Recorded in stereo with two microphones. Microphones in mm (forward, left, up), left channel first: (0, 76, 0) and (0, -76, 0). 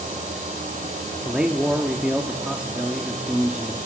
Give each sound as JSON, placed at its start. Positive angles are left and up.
{"t": 1.2, "sound": "a man speaking", "side_deg": -5, "distance_m": 1.0}